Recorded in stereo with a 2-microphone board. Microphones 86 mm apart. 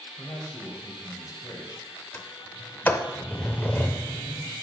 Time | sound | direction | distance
0.2 | a man speaking | 45° left (ahead or behind) | 1.8 m
2.1 | a sliding door | 25° left (ahead or behind) | 0.6 m